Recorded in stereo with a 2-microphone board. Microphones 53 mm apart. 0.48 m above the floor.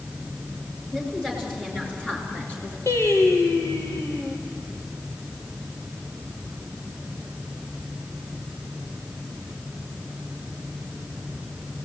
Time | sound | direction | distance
0.9 | a woman speaking | 10° left (ahead or behind) | 8 m
2.9 | singing | 65° left (ahead or behind) | 4 m